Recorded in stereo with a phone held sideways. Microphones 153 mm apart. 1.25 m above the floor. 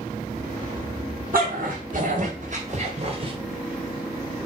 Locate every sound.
1.3 s a dog barking: 70° right (ahead or behind), 3.5 m; by 3.3 s 35° right (ahead or behind), 2 m